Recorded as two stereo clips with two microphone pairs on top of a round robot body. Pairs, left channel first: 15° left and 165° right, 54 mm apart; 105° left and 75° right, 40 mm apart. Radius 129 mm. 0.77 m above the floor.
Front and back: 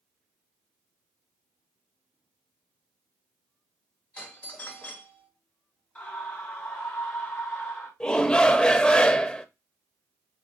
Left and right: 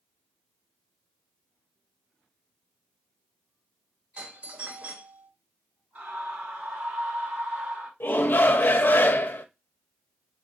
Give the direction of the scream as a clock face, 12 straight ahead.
1 o'clock.